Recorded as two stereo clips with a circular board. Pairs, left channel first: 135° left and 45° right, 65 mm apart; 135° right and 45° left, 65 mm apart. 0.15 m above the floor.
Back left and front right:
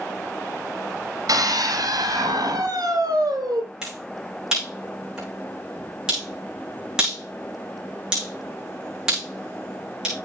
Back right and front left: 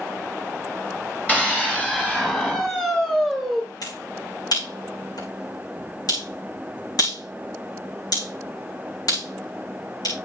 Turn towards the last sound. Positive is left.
turn(degrees=-125)